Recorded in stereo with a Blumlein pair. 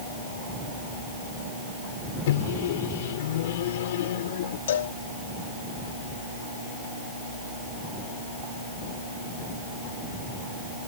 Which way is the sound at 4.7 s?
60° left.